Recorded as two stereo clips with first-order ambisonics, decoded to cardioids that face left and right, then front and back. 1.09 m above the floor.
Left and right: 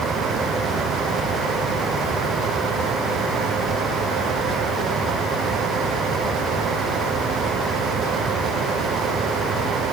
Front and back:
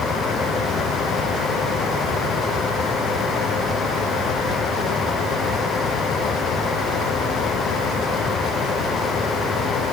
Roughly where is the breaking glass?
I don't hear breaking glass.